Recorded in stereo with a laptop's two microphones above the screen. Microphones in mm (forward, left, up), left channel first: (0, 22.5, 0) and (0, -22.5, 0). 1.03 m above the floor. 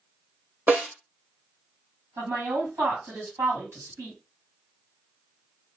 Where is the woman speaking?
75° right (ahead or behind), 2 m.